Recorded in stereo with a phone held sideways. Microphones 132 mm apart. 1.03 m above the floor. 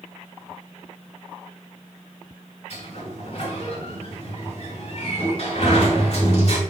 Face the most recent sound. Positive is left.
turn(degrees=55)  # may be behind; listen again after turning